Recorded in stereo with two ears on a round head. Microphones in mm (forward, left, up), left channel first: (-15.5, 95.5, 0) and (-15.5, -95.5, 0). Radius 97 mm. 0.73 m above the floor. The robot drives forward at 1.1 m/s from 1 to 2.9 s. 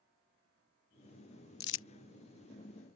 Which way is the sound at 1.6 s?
45° left (ahead or behind).